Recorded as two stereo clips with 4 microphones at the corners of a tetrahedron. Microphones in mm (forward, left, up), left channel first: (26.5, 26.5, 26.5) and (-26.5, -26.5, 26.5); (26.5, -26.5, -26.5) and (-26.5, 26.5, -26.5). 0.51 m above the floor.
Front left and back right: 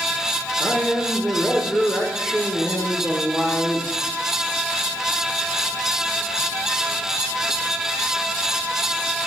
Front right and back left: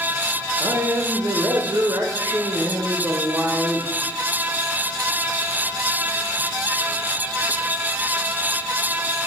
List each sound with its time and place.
0.6 s a man speaking: 140° left, 1.5 m